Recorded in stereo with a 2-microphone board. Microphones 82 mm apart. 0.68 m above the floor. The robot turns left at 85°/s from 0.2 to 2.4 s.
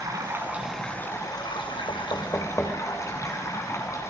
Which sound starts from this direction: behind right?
Running water, at 0.0 s.